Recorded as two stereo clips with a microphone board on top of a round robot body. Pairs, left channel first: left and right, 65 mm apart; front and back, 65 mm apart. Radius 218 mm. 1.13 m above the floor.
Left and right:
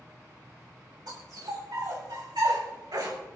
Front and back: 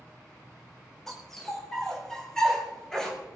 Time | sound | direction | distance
1.1 | a dog barking | 85° right | 6 m